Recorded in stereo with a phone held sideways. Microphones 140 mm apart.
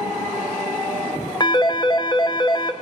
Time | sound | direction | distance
1.4 | a phone ringing | 30° left (ahead or behind) | 0.6 m